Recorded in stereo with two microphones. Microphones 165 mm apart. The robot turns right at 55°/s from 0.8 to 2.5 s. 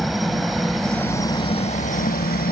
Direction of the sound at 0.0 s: Straight ahead.